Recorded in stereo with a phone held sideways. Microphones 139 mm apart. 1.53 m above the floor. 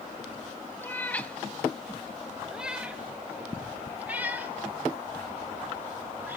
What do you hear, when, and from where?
0.8 s a cat meowing: 15° left (ahead or behind), 0.8 m; by 6.4 s 15° right (ahead or behind), 3 m